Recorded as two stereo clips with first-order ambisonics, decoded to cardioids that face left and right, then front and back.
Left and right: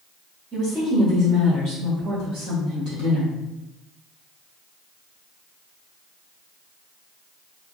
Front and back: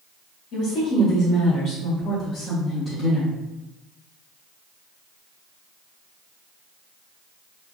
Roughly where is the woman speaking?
Ahead.